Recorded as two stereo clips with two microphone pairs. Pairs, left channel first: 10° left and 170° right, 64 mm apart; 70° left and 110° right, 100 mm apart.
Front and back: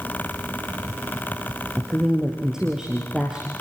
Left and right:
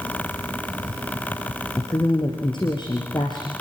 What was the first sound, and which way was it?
A woman speaking, 110° left.